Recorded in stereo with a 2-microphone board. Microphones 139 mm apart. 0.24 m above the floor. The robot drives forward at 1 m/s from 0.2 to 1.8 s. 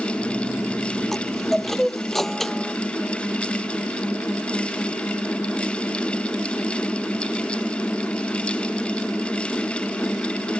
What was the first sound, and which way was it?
A chime, centre (ahead or behind).